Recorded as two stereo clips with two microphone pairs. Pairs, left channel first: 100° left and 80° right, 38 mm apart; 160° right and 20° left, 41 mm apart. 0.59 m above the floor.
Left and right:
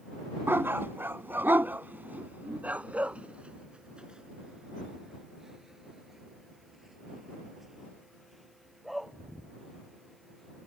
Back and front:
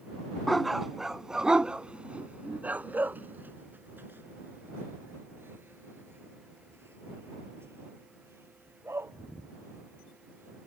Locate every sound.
0.5 s a dog barking: 75° right; by 10.7 s 10° left